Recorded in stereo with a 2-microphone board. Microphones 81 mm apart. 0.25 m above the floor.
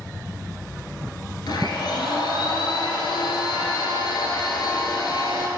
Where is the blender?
70° left (ahead or behind), 1.2 m.